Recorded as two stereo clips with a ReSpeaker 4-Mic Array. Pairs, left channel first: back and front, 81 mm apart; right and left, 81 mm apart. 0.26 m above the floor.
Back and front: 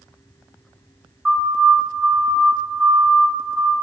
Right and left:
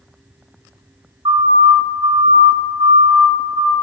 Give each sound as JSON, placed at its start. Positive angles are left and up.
{"t": 1.2, "sound": "a siren", "azimuth_deg": 85, "distance_m": 4.5}